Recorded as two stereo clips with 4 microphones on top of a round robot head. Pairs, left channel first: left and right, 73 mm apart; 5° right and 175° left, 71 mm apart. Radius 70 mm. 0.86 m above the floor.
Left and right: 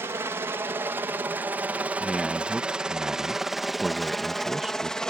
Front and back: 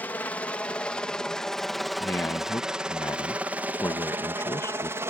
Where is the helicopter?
60° right; by 5.1 s 165° left.